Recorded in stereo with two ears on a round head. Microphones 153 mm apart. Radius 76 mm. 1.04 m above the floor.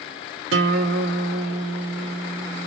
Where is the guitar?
80° right, 0.7 m.